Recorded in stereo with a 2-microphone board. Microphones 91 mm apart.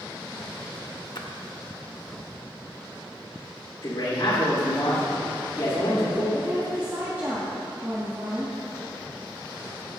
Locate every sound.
1.1 s a splash: 55° left (ahead or behind), 0.8 m
3.8 s a man speaking: 60° left (ahead or behind), 2.5 m
6.3 s a woman speaking: 25° right (ahead or behind), 1.6 m